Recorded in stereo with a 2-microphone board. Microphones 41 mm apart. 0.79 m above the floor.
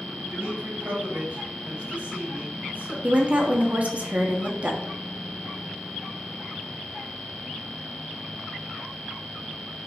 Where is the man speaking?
70° right (ahead or behind), 3 m; by 2.9 s 50° right (ahead or behind), 4.5 m.